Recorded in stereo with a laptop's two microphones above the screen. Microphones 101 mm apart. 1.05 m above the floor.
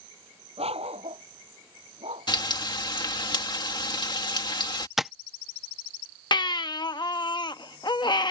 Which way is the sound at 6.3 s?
45° left (ahead or behind).